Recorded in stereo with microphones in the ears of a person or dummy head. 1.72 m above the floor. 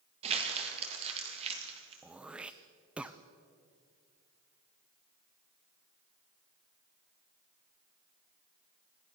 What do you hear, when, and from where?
0.2 s crumpling: 30° right (ahead or behind), 3 m
2.0 s throat clearing: 10° right (ahead or behind), 0.6 m